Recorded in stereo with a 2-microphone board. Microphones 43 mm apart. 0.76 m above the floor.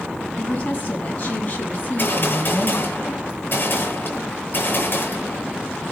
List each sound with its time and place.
0.4 s a woman speaking: 35° left (ahead or behind), 6.5 m
1.8 s a gunshot: 45° left (ahead or behind), 9 m